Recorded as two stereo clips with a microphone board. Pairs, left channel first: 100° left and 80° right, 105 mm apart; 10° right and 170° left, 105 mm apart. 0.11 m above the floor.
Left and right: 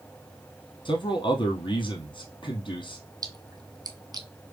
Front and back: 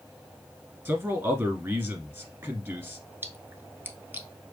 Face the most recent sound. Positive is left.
turn(degrees=-120)